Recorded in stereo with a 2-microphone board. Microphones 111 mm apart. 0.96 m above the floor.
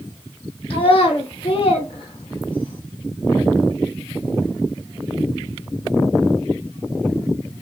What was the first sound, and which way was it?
A child speaking, 55° left (ahead or behind).